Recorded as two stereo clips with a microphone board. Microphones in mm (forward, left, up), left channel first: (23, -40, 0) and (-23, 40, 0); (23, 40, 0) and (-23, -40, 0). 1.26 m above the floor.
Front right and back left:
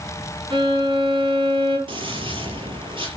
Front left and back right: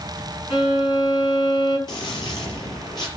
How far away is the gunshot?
About 5 m.